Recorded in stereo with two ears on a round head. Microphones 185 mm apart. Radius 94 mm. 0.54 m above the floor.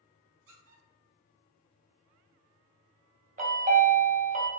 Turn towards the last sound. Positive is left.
turn(degrees=-35)  # may be behind; listen again after turning